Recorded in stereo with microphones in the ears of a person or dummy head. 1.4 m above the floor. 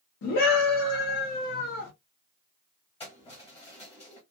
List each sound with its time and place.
0.2 s a scream: 60° left (ahead or behind), 1.2 m
3.0 s keys jangling: 25° left (ahead or behind), 1.3 m